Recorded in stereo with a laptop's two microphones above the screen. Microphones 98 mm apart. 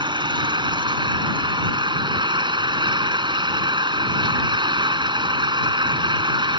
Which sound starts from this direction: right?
An engine running, at 0.0 s.